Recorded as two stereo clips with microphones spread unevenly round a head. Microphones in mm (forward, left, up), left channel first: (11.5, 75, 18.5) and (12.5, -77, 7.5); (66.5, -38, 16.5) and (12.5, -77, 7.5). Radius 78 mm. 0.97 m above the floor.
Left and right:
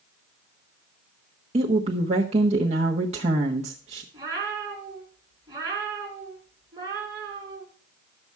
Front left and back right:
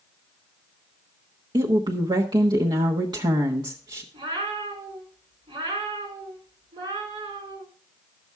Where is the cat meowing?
160° right, 4 m.